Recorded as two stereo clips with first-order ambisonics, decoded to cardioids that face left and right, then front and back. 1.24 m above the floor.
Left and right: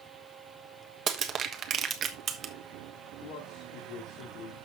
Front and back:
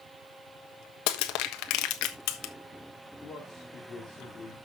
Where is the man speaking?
65° left, 3 m.